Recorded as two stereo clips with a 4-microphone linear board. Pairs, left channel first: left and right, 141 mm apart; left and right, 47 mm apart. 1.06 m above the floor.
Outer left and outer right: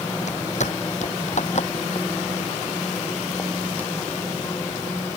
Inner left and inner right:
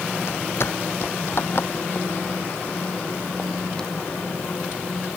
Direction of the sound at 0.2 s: 60° left (ahead or behind).